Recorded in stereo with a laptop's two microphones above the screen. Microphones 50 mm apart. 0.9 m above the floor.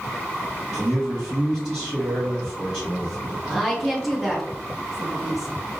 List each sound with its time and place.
0.7 s a man speaking: 10° right (ahead or behind), 1.7 m
3.5 s a woman speaking: centre (ahead or behind), 1.4 m